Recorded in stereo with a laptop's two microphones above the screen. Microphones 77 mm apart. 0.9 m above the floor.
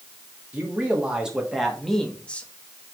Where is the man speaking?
20° right (ahead or behind), 1.7 m; by 2.5 s 20° left (ahead or behind), 1.2 m.